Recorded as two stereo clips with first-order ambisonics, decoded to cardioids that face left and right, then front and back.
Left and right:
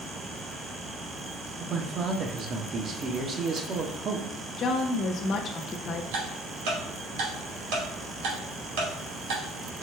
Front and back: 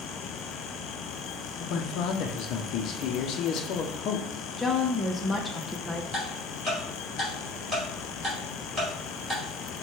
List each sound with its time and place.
1.6 s a man speaking: 35° right, 0.7 m
4.6 s a woman speaking: 75° left, 0.5 m
6.1 s ticking: 95° right, 2 m